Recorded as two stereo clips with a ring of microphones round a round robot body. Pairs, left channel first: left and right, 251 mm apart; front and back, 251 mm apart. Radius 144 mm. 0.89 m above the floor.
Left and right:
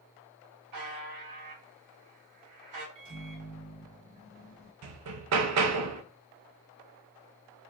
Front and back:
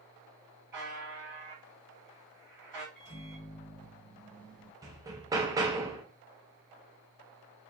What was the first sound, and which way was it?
A buzzer, 100° right.